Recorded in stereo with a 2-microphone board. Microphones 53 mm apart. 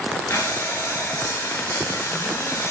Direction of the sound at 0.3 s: 65° left (ahead or behind).